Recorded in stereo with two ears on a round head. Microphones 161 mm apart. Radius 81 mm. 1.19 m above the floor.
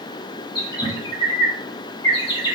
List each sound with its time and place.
0.6 s a bird: 25° left (ahead or behind), 1.5 m